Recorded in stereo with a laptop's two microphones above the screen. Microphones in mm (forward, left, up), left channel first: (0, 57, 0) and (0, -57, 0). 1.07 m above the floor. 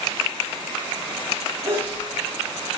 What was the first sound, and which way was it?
A sneeze, 55° right (ahead or behind).